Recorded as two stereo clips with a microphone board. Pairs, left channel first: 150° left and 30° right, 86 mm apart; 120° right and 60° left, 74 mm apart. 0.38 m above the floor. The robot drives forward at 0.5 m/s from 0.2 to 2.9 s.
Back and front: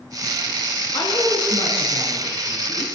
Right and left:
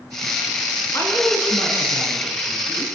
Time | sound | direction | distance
0.9 | a woman speaking | 175° right | 5.5 m